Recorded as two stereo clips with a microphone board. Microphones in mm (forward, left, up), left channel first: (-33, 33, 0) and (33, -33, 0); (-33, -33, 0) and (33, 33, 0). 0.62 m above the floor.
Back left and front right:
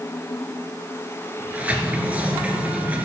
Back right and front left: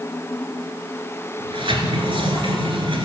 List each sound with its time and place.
1.4 s a sliding door: 30° left, 1.6 m